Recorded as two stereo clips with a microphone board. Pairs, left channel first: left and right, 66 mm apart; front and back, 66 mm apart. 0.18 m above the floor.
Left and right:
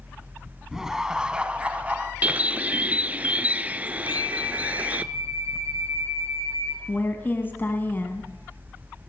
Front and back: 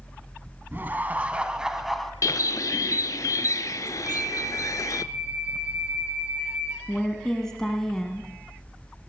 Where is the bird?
25° right, 0.5 m.